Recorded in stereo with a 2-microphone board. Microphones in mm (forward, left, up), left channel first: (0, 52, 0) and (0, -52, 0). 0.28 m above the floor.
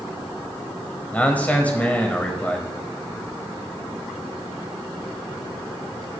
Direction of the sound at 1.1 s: 15° left (ahead or behind).